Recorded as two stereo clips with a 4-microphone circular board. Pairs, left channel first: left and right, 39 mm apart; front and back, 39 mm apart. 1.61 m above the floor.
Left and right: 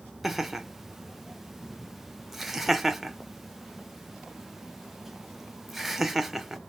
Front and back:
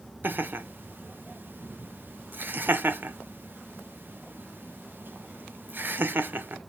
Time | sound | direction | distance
0.2 | laughter | 175° right | 0.6 m